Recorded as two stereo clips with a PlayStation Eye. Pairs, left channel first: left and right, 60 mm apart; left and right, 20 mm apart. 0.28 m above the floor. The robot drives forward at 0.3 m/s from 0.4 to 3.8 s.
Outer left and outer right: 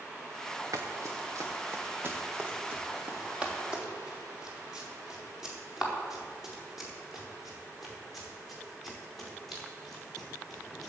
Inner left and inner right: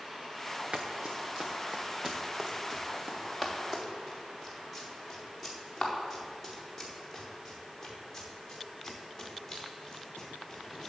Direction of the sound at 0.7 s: 65° right (ahead or behind).